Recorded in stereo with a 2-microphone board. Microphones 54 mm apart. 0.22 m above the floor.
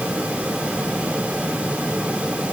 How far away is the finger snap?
No finger snap in this recording.